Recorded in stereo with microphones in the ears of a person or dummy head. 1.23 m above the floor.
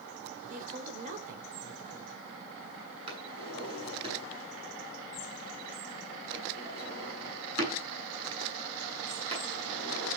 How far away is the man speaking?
About 4.5 m.